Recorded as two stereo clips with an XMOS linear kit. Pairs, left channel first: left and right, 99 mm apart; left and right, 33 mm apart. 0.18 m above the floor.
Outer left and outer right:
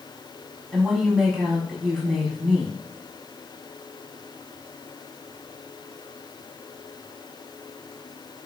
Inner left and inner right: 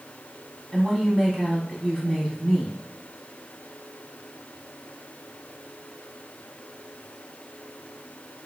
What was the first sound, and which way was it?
A woman speaking, 5° right (ahead or behind).